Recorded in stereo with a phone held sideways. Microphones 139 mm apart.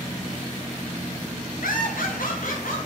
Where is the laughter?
85° left, 0.8 m; by 2.9 s 70° left (ahead or behind), 1.4 m.